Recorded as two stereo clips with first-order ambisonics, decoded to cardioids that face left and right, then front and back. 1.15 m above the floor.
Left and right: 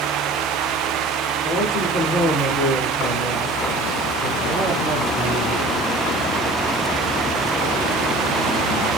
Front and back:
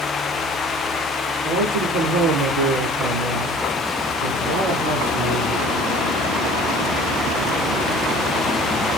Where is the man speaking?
155° left, 4 m; by 5.8 s 170° right, 4.5 m.